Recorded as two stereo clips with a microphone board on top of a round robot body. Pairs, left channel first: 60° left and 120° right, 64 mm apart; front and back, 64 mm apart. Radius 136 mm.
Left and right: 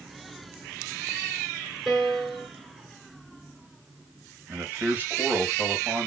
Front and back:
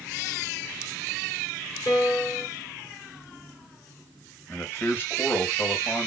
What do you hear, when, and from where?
1.9 s a piano: 35° right, 3.5 m
4.5 s a man speaking: 60° right, 1.7 m